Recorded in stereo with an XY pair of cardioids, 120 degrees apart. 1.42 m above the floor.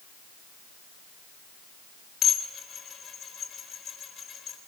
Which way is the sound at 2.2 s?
45° left.